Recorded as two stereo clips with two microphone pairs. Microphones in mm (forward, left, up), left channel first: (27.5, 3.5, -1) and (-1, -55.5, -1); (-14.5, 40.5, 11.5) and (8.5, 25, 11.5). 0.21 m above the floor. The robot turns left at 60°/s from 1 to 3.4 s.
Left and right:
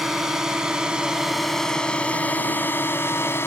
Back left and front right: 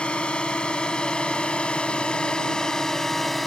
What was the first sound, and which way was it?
A drone, 165° left.